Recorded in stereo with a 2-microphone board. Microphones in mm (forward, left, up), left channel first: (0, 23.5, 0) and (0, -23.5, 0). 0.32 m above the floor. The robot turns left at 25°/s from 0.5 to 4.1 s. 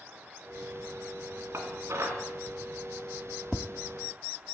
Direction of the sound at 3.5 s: 5° left (ahead or behind).